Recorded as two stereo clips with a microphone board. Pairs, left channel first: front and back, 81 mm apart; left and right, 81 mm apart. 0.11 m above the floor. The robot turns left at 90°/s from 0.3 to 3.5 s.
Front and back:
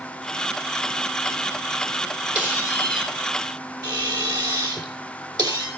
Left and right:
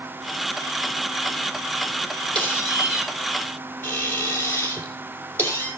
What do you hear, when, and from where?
2.4 s a squeak: 110° right, 3 m; by 5.7 s 150° left, 3 m